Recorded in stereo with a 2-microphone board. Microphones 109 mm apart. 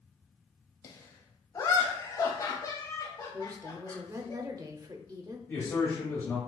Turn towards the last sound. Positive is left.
turn(degrees=20)  # may be behind; listen again after turning